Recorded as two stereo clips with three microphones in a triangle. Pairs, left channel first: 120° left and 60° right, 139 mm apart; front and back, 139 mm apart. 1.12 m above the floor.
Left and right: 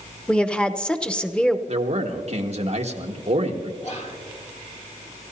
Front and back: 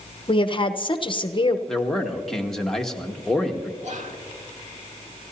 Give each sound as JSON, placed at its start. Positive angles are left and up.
{"t": 0.3, "sound": "a woman speaking", "azimuth_deg": 40, "distance_m": 0.8}
{"t": 1.7, "sound": "a man speaking", "azimuth_deg": -85, "distance_m": 1.4}
{"t": 3.8, "sound": "whispering", "azimuth_deg": 155, "distance_m": 2.0}